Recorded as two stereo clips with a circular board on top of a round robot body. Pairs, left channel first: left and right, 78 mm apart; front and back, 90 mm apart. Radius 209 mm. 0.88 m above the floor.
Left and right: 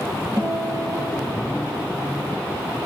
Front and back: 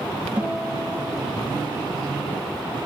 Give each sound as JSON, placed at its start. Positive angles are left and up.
{"t": 0.4, "sound": "a guitar", "azimuth_deg": -110, "distance_m": 5.5}